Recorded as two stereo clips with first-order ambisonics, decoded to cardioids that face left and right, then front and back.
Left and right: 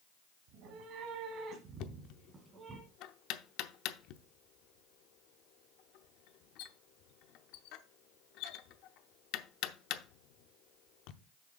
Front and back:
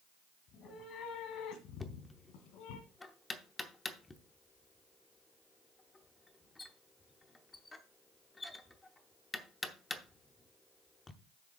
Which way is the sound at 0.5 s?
55° right.